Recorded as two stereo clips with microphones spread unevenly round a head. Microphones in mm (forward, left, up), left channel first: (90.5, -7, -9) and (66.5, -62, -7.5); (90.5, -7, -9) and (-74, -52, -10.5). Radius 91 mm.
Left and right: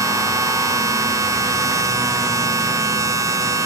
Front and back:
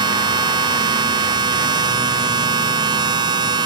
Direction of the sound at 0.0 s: 100° right.